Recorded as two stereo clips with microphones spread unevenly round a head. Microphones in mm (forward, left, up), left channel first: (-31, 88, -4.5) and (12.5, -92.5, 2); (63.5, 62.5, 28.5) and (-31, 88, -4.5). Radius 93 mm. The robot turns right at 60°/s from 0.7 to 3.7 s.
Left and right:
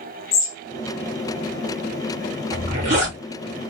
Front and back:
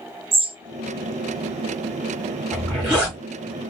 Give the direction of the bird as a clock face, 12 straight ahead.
8 o'clock.